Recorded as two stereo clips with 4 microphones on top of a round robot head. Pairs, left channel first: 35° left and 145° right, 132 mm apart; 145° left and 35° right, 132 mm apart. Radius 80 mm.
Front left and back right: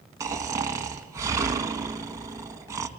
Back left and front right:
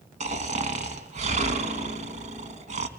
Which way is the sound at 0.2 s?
75° right.